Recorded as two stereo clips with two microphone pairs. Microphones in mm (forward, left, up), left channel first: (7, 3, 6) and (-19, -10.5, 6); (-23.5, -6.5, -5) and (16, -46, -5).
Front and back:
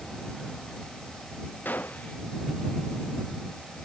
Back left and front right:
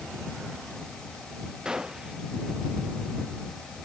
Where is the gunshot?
30° left.